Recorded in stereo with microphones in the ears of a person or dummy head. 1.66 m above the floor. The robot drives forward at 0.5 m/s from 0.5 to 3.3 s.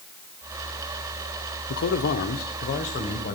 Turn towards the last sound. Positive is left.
turn(degrees=35)  # may be behind; listen again after turning